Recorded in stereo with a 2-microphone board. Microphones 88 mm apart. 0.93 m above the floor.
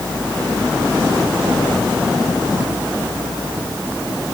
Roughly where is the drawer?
I don't hear a drawer.